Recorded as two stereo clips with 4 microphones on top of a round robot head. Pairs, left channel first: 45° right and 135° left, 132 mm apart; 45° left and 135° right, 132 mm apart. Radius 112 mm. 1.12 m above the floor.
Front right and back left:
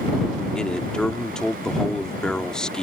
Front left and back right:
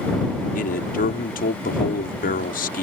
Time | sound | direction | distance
0.6 | a man speaking | 40° left | ?